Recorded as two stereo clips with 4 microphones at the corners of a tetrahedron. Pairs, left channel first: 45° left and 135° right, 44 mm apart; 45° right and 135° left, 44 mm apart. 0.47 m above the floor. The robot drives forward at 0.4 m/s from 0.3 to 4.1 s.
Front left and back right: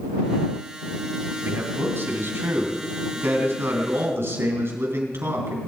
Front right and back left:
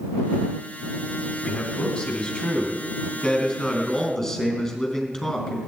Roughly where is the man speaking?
Behind right.